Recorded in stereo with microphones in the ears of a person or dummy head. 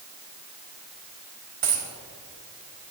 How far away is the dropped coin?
About 4 m.